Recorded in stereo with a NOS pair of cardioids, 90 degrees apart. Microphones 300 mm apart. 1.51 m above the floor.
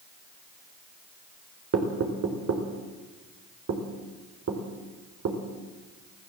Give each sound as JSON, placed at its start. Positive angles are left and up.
{"t": 1.7, "sound": "knocking", "azimuth_deg": -50, "distance_m": 4.5}